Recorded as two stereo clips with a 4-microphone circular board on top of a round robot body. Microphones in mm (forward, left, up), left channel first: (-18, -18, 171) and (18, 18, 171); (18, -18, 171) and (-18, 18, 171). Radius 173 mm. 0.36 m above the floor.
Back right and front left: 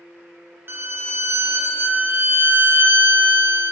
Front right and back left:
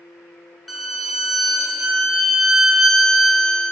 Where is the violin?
45° left, 1.0 m.